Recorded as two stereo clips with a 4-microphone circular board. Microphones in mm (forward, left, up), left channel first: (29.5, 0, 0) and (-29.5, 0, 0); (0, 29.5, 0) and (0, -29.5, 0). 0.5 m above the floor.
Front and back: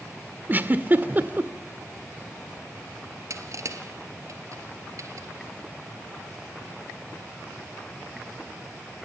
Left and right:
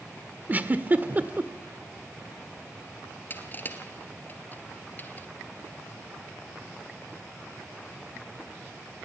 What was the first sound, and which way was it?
A giggle, 135° right.